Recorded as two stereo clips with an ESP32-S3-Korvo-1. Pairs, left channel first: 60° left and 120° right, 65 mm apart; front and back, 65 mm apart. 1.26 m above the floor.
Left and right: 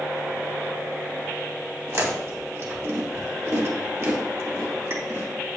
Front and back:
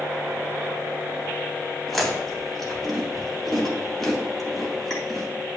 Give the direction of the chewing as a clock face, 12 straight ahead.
3 o'clock.